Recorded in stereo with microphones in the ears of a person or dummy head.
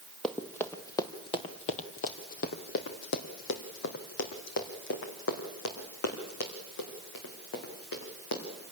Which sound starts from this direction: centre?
Running footsteps, at 0.2 s.